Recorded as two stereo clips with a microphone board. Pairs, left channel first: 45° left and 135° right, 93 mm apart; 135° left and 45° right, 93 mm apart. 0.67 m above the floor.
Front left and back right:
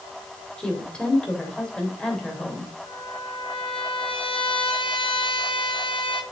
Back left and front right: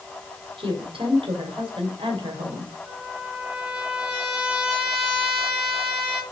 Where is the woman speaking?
35° right, 2.5 m.